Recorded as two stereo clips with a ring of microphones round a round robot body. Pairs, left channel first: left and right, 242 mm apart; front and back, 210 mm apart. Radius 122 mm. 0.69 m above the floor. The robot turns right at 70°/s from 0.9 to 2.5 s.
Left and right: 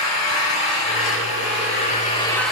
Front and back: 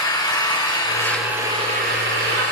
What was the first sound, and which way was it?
An engine running, 70° left.